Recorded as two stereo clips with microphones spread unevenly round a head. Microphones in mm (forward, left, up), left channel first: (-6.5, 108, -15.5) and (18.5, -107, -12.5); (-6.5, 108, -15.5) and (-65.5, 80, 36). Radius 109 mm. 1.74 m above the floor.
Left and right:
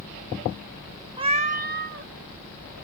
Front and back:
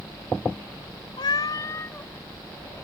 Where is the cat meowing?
40° right; by 2.8 s 100° right.